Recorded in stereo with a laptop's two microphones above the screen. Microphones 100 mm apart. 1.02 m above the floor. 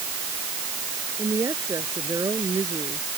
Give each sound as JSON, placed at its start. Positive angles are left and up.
{"t": 1.2, "sound": "a woman speaking", "side_deg": -35}